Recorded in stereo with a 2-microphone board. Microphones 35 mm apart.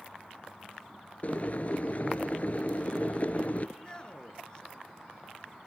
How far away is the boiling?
About 1.1 m.